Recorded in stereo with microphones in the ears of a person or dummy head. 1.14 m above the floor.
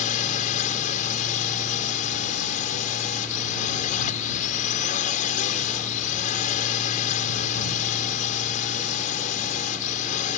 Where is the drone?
50° left (ahead or behind).